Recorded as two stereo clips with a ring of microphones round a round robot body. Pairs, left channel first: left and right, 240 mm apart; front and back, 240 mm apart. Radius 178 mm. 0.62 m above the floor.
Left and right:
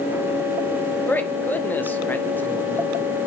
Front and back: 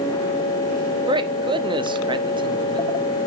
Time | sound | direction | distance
1.1 | a man speaking | 155° left | 1.0 m